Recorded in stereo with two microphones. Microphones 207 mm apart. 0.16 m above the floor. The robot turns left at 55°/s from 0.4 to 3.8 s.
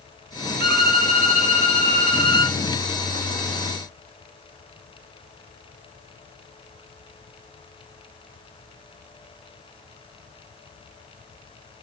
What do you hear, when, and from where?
0.6 s a violin: 15° left (ahead or behind), 1.3 m; by 2.6 s 20° left (ahead or behind), 1.3 m